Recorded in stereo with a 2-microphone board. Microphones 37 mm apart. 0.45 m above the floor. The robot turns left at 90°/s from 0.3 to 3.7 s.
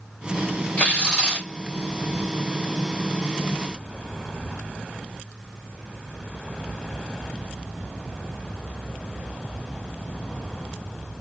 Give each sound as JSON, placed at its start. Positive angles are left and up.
{"t": 0.8, "sound": "tearing paper", "azimuth_deg": 70, "distance_m": 1.7}